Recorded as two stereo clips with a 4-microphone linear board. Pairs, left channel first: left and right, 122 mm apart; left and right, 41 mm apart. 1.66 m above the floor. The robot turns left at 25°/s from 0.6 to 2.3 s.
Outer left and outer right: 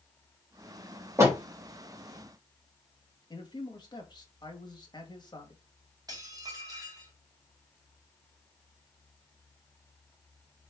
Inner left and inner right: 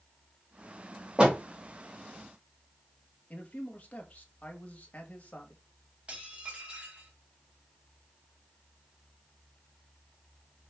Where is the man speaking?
35° left (ahead or behind), 2 m.